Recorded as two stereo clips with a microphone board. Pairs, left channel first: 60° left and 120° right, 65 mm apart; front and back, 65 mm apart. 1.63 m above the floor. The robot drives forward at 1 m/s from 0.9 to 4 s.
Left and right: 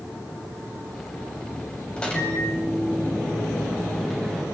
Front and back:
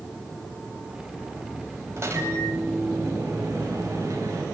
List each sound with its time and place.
2.0 s a microwave: 130° left, 9.5 m; by 4.4 s 140° left, 10.5 m